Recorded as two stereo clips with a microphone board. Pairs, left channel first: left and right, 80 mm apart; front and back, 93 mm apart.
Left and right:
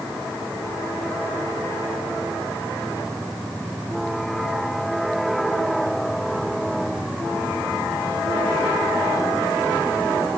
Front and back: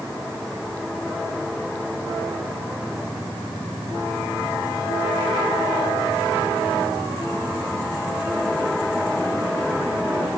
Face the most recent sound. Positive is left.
No sound to turn to.